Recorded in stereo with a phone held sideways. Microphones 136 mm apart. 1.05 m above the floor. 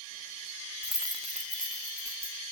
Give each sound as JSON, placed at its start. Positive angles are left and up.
{"t": 0.8, "sound": "keys jangling", "side_deg": 15, "distance_m": 0.5}